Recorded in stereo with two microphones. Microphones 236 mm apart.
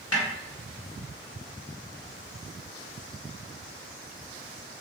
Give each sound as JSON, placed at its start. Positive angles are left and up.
{"t": 0.1, "sound": "a snare drum", "side_deg": 75, "distance_m": 1.3}